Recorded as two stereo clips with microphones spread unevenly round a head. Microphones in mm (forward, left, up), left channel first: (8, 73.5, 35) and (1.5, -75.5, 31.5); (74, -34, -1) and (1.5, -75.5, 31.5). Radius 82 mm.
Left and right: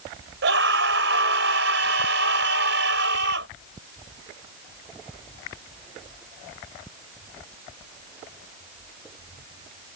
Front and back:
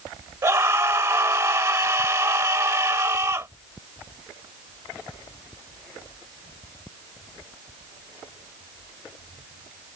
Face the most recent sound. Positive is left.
turn(degrees=-95)